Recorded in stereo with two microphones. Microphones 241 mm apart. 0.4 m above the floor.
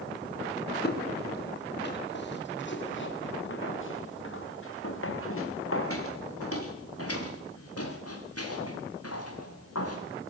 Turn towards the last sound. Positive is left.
turn(degrees=85)